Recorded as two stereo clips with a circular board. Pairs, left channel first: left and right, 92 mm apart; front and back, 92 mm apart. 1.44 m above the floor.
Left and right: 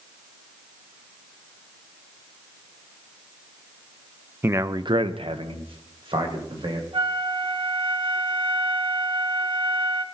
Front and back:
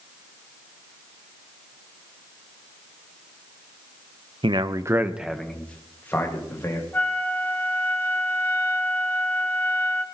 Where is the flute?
70° right, 1.1 m.